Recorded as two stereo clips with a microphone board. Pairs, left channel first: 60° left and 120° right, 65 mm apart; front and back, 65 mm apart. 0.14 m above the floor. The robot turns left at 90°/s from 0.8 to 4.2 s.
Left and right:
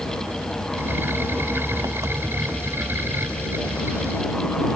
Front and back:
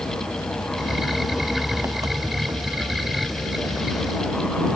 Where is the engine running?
40° right; by 4.8 s 15° left.